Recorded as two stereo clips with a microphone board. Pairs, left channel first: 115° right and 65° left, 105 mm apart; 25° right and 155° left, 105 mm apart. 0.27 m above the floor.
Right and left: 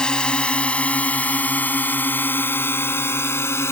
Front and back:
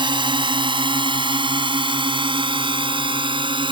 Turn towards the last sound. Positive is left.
turn(degrees=-175)